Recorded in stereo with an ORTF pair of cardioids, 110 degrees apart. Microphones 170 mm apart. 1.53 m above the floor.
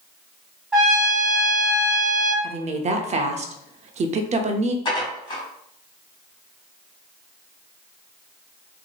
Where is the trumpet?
5° right, 1.9 m.